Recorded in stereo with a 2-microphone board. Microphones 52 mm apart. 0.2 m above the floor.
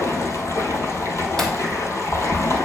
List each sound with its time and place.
0.0 s running water: 75° left (ahead or behind), 1.3 m
1.4 s breaking glass: 10° left (ahead or behind), 1.5 m